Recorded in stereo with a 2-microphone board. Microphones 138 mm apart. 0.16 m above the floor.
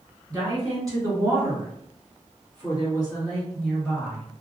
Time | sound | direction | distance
0.3 | a woman speaking | 30° right (ahead or behind) | 1.9 m